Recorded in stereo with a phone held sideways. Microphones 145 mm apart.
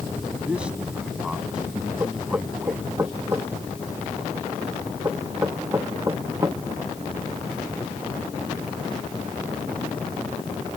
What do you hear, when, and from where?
0.5 s a man speaking: 10° right (ahead or behind)
2.0 s knocking: 20° right (ahead or behind)